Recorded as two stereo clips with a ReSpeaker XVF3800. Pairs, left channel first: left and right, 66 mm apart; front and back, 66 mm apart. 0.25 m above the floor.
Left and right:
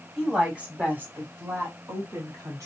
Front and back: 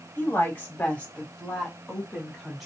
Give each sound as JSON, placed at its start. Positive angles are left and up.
{"t": 0.2, "sound": "a woman speaking", "azimuth_deg": -15, "distance_m": 1.2}